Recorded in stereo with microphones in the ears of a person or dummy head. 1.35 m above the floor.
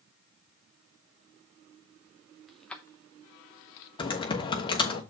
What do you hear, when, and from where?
2.5 s keys jangling: 5° right (ahead or behind), 0.9 m; by 3.9 s 75° left (ahead or behind), 0.8 m
4.0 s typing on a keyboard: 25° left (ahead or behind), 1.0 m